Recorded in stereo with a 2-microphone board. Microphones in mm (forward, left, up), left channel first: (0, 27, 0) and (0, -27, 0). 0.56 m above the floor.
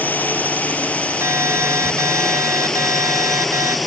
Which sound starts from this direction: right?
An alarm, at 1.2 s.